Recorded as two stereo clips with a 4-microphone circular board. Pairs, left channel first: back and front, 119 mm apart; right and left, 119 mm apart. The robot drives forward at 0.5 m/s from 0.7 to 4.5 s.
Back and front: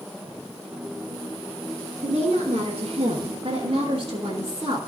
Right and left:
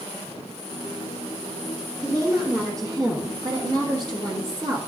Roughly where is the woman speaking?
Ahead left.